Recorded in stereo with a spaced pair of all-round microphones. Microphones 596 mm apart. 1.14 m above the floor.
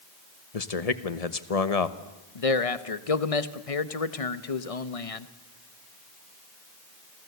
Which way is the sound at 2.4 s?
65° left (ahead or behind).